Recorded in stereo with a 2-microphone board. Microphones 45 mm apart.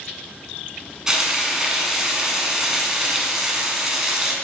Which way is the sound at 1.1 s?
15° right (ahead or behind).